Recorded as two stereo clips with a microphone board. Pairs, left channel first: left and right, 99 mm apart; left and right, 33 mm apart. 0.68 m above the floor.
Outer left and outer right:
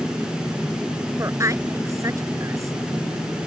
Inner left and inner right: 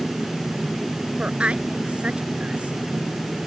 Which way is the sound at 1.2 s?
35° right (ahead or behind).